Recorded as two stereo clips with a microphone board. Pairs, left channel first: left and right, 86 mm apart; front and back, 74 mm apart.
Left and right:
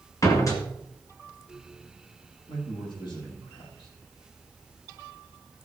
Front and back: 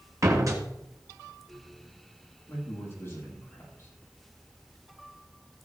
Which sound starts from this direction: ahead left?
A man speaking, at 2.5 s.